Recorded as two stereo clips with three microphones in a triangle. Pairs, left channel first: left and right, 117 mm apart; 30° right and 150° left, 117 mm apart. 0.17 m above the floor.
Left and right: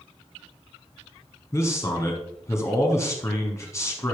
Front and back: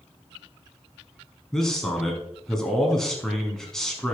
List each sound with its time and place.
1.5 s a man speaking: 50° left, 1.2 m